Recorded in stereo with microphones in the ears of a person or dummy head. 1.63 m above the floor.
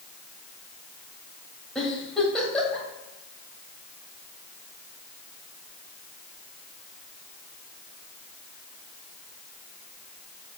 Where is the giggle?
5° left (ahead or behind), 1.9 m.